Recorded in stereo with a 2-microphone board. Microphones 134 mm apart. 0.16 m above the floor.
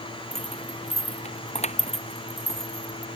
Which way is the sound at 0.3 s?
55° left (ahead or behind).